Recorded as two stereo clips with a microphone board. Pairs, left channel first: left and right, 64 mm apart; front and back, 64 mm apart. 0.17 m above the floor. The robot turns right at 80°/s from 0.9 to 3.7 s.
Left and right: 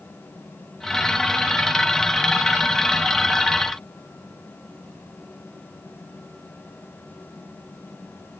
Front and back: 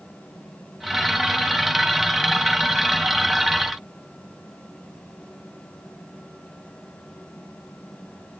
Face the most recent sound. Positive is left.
No sound to turn to.